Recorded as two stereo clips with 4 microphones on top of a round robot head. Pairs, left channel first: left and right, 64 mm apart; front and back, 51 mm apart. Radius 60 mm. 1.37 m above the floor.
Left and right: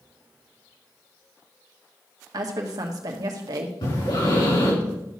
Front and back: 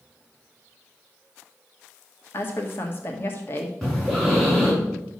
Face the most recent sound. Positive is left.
turn(degrees=85)